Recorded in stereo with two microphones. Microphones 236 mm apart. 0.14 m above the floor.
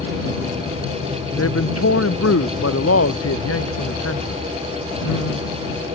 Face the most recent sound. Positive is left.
turn(degrees=80)